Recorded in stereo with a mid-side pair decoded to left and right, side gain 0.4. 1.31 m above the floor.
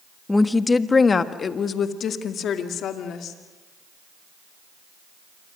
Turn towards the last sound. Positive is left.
turn(degrees=80)